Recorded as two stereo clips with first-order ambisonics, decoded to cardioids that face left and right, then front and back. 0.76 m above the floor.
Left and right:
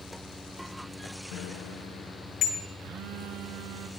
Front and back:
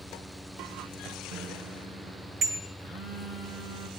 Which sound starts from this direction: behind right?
A phone buzzing, at 2.8 s.